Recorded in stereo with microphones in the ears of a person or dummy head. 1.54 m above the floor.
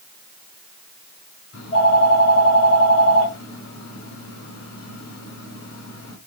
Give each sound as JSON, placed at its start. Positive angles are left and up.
{"t": 1.5, "sound": "a phone ringing", "side_deg": 70, "distance_m": 7.0}